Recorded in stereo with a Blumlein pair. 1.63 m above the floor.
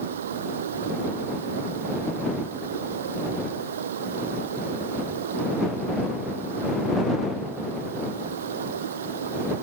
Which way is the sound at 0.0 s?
60° right.